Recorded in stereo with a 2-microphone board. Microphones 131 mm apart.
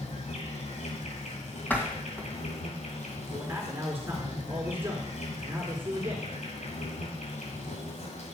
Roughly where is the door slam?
Centre.